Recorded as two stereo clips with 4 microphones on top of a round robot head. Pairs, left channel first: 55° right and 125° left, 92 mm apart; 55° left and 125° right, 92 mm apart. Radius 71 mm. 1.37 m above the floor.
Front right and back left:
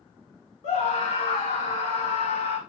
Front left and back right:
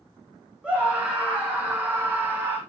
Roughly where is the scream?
Ahead right.